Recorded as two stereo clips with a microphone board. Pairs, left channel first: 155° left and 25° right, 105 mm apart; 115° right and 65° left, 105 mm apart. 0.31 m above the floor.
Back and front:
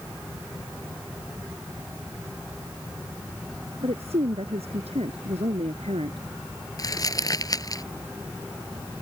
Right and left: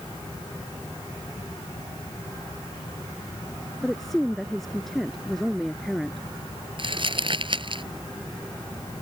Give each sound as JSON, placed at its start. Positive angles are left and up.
{"t": 3.8, "sound": "a woman speaking", "azimuth_deg": -25}
{"t": 6.8, "sound": "crumpling", "azimuth_deg": 105}